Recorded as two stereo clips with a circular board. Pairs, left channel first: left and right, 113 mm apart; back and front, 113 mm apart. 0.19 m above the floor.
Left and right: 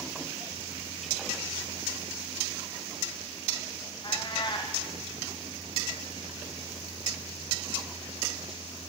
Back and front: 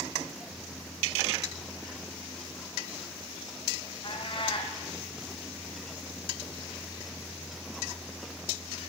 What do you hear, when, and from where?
4.0 s a cat meowing: 135° left, 2.5 m